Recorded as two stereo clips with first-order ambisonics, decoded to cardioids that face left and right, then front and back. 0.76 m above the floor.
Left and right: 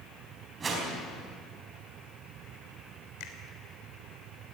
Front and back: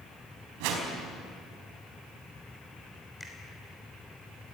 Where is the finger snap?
85° left, 3 m.